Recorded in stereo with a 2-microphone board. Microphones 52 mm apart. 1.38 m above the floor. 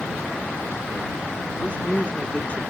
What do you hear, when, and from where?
1.6 s a woman speaking: 30° left (ahead or behind)